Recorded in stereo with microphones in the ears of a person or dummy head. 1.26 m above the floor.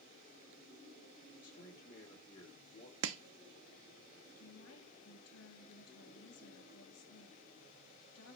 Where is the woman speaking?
75° left (ahead or behind), 1.7 m.